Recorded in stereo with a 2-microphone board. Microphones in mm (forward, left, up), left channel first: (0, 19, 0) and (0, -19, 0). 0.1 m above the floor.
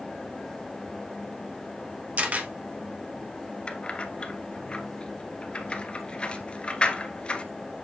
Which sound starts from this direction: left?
Keys jangling, at 3.7 s.